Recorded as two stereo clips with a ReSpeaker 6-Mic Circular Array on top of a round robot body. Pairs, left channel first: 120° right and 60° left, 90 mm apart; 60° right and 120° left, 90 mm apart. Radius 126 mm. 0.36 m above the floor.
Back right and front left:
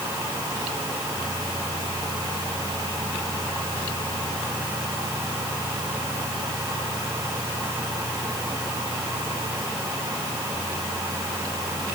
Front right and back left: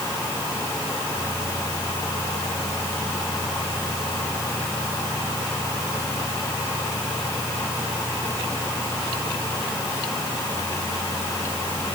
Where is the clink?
I don't hear a clink.